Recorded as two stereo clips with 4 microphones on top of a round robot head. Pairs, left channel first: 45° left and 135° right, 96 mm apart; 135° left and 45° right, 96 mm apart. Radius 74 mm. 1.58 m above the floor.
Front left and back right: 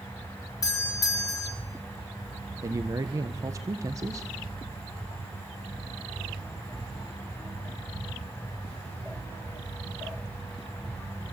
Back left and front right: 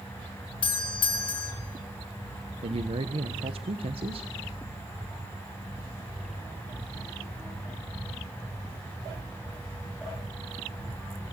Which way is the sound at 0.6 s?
100° left.